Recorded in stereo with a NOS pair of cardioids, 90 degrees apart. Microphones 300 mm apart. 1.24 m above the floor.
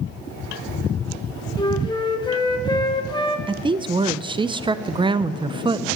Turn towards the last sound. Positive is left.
turn(degrees=-15)